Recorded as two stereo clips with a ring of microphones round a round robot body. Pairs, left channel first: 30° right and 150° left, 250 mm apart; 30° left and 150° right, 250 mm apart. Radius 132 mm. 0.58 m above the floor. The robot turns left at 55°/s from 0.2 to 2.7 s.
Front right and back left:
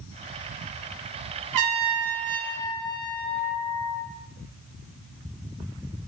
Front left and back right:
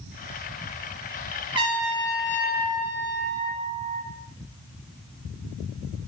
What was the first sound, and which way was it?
A trumpet, 140° left.